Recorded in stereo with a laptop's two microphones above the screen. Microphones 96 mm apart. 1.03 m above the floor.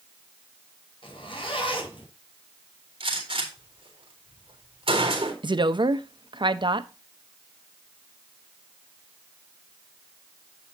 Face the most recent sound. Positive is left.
turn(degrees=-55)  # may be behind; listen again after turning